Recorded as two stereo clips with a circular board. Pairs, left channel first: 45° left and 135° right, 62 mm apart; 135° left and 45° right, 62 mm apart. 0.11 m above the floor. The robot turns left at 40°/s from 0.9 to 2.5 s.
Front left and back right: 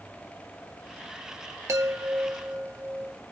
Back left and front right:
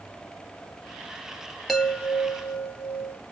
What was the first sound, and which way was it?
A chime, 140° right.